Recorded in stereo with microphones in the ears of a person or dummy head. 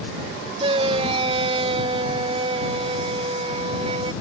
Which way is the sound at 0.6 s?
30° right (ahead or behind).